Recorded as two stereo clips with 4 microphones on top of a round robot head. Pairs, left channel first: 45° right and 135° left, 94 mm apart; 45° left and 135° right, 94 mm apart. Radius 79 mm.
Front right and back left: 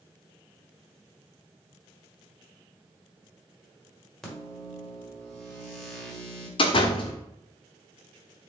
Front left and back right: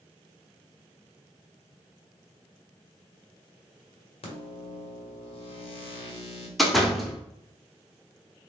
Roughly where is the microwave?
Ahead left.